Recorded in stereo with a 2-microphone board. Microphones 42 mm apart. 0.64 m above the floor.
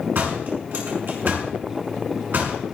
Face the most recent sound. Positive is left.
turn(degrees=-60)  # may be behind; listen again after turning